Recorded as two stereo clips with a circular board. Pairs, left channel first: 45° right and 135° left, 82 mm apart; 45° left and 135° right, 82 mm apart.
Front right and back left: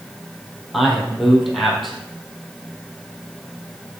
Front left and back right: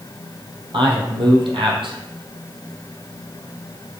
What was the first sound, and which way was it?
A man speaking, 135° right.